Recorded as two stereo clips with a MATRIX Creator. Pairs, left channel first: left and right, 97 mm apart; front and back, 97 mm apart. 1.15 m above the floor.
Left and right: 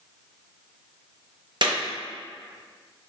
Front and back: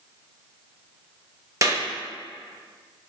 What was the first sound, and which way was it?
A clap, 125° right.